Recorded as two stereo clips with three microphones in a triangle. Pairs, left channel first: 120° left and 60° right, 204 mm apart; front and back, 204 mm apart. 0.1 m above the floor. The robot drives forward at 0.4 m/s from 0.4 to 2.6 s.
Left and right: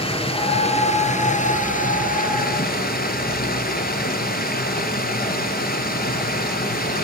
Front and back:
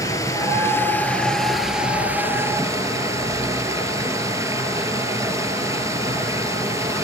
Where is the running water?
70° left, 1.7 m; by 7.0 s 110° left, 1.7 m.